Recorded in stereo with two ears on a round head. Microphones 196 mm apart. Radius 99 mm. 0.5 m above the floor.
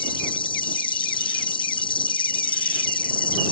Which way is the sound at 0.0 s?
25° left (ahead or behind).